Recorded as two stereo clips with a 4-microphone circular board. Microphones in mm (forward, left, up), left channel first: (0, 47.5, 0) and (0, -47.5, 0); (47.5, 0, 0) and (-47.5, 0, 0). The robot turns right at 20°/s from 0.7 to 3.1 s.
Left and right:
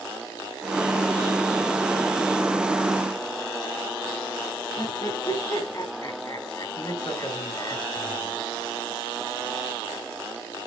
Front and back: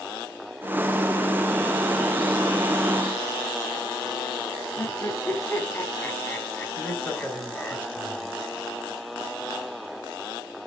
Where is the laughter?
65° left, 1.4 m.